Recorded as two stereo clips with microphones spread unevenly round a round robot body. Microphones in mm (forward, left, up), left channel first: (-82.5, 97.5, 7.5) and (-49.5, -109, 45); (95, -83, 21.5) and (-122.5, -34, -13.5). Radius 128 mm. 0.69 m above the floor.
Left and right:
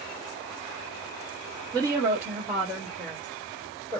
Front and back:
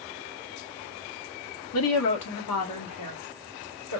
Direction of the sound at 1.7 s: Straight ahead.